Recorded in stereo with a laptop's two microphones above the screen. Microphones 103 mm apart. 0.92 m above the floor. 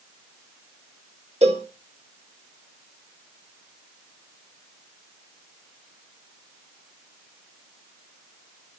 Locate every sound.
1.4 s a cowbell: 85° right, 1.3 m